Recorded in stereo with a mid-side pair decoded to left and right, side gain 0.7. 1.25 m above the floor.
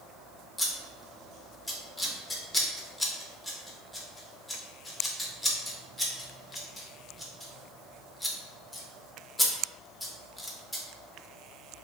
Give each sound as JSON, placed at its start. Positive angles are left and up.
{"t": 0.6, "sound": "scissors", "azimuth_deg": 10, "distance_m": 0.6}